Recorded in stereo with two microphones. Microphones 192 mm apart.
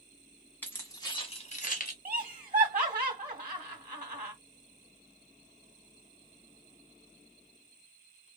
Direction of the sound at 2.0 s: 40° right (ahead or behind).